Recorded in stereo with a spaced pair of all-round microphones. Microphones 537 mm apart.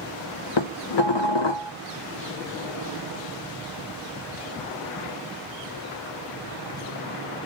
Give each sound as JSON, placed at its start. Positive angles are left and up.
{"t": 0.6, "sound": "dishes clattering", "side_deg": 50, "distance_m": 0.7}